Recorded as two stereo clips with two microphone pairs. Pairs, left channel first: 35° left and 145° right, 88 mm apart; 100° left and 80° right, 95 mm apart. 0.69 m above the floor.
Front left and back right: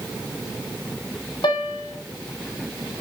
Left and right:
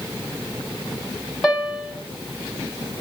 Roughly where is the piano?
Ahead.